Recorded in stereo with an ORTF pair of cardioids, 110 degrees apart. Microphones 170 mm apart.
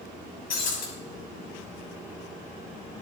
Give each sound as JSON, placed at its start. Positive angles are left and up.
{"t": 0.5, "sound": "breaking glass", "azimuth_deg": 55, "distance_m": 5.0}